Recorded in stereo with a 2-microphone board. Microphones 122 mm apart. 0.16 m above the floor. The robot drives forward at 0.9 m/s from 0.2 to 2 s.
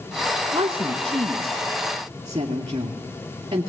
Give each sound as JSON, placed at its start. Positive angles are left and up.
{"t": 0.5, "sound": "a woman speaking", "side_deg": -45, "distance_m": 1.6}